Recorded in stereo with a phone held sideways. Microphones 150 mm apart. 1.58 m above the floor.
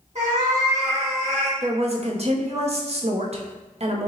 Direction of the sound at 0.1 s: 55° right (ahead or behind).